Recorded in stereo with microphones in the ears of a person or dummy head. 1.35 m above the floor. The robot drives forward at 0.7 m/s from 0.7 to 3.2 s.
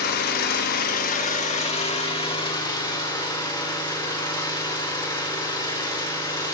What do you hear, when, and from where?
0.0 s an engine running: 50° left (ahead or behind), 1.2 m; by 6.5 s 20° left (ahead or behind), 2.5 m